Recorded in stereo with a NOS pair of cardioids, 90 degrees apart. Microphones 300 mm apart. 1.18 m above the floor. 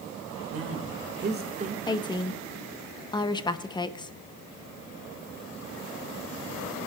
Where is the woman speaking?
15° left, 0.9 m.